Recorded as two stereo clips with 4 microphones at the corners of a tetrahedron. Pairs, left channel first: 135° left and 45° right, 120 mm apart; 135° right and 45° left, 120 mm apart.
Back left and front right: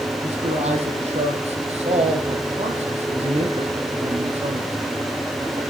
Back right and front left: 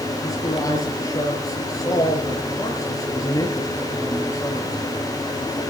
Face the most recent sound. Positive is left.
turn(degrees=-75)